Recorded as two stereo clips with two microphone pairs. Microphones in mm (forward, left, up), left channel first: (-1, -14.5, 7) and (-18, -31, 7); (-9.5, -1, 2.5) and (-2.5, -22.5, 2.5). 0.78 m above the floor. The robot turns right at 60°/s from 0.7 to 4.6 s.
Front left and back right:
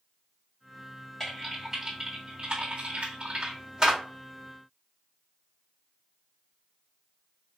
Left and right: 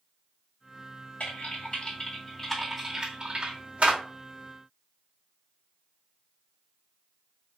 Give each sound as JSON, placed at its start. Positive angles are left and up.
{"t": 1.2, "sound": "typing on a keyboard", "azimuth_deg": 125, "distance_m": 1.8}